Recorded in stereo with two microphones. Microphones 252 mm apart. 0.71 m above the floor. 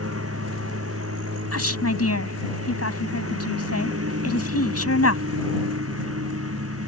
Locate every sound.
0.0 s a lawn mower: 65° right (ahead or behind)
1.5 s a woman speaking: 70° left (ahead or behind)